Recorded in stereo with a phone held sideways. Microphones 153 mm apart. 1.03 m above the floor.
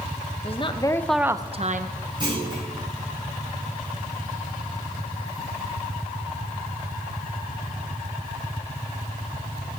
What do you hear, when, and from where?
0.4 s a woman speaking: 40° left (ahead or behind), 1.0 m; by 1.9 s 60° right (ahead or behind), 0.8 m
2.2 s a clunk: 30° right (ahead or behind), 6.5 m